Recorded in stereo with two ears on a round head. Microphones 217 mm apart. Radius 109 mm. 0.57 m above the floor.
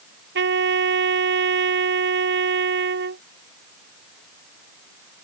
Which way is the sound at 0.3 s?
50° right (ahead or behind).